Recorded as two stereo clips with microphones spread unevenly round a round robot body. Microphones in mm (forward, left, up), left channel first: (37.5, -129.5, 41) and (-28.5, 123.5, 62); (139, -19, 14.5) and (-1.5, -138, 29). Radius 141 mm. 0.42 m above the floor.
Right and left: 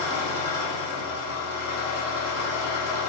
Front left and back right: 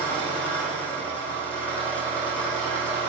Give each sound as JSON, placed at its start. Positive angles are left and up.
{"t": 0.0, "sound": "an engine running", "azimuth_deg": -45, "distance_m": 9.5}